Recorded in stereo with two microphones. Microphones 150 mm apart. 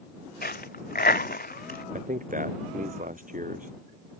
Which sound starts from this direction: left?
A dropped coin, at 0.4 s.